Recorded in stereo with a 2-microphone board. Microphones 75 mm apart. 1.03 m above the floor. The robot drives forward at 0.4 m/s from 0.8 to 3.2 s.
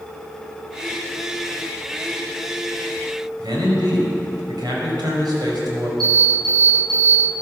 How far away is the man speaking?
About 5 m.